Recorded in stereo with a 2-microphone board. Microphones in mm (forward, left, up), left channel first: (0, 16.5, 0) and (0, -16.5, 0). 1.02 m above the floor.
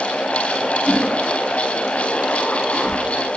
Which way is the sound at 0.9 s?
Centre (ahead or behind).